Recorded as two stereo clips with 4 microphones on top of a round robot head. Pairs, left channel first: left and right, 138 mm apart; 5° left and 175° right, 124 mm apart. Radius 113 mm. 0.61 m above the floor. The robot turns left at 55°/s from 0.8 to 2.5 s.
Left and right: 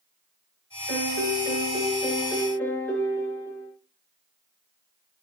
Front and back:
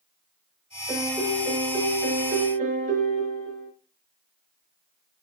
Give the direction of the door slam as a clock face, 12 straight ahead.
No door slam in this recording.